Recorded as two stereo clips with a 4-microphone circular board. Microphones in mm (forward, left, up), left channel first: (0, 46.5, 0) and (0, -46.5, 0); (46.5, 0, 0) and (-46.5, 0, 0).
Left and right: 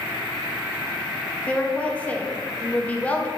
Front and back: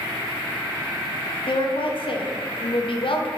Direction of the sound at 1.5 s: 15° left.